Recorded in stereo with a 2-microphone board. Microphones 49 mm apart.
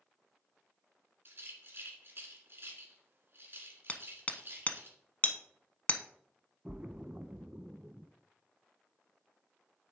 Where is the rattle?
50° right (ahead or behind), 1.8 m.